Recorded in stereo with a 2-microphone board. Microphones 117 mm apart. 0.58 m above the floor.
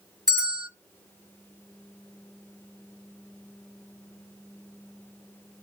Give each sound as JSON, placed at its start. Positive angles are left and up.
{"t": 0.3, "sound": "a bell", "side_deg": -35, "distance_m": 1.4}